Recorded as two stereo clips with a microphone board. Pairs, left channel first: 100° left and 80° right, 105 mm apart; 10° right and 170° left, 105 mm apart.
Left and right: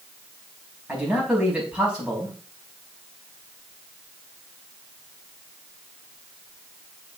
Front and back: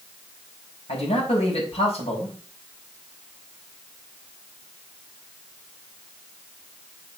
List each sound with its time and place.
0.9 s a man speaking: straight ahead, 5 m